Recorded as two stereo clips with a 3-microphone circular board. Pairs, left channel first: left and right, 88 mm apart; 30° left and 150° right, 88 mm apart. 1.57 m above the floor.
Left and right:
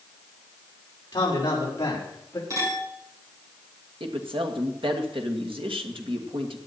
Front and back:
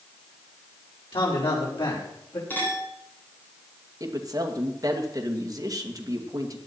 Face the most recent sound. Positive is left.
turn(degrees=-105)